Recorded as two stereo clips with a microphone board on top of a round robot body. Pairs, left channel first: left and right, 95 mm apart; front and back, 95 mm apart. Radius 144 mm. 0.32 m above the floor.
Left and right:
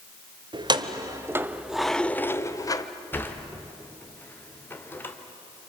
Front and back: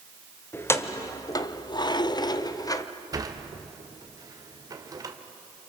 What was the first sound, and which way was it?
Keys jangling, 65° right.